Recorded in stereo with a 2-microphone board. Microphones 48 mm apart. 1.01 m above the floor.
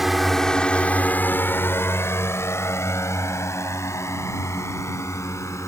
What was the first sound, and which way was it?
A drone, 5° right (ahead or behind).